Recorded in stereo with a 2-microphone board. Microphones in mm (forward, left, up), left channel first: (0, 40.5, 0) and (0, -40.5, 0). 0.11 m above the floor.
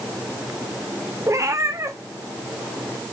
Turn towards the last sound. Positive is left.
turn(degrees=-35)  # may be behind; listen again after turning